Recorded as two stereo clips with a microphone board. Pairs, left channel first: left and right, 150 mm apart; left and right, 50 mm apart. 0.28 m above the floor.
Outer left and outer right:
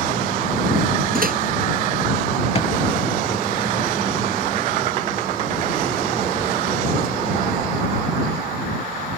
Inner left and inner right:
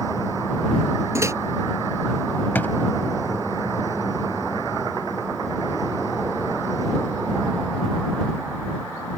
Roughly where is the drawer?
Left.